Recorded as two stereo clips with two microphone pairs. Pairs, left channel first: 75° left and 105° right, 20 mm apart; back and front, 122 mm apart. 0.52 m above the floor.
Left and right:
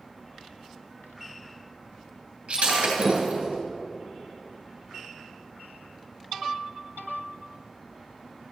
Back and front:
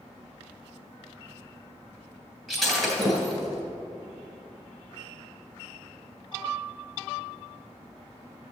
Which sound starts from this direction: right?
Breaking glass, at 2.5 s.